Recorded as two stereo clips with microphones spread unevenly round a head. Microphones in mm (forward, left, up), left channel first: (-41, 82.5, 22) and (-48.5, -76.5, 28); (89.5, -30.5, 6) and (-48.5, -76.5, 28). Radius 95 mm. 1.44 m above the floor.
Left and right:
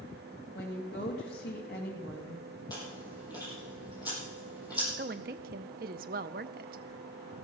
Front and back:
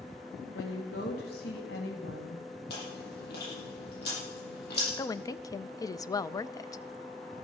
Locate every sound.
0.6 s a woman speaking: 45° left, 2.5 m
2.7 s chewing: 15° left, 7 m
5.0 s a woman speaking: 50° right, 0.6 m